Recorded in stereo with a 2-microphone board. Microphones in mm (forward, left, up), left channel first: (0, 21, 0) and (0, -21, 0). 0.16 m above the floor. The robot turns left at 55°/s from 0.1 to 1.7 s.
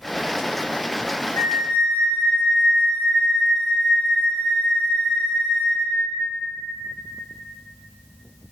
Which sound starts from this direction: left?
A flute, at 1.4 s.